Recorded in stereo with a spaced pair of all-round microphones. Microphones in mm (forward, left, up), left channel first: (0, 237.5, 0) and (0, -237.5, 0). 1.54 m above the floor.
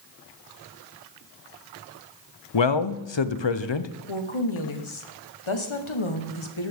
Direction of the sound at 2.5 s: 65° left (ahead or behind).